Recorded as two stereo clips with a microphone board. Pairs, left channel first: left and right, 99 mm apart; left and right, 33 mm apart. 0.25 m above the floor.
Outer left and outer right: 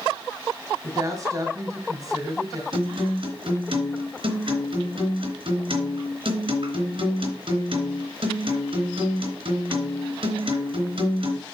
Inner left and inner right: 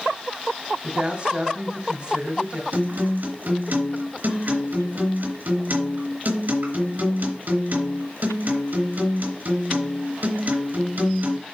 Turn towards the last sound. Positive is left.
turn(degrees=-60)  # may be behind; listen again after turning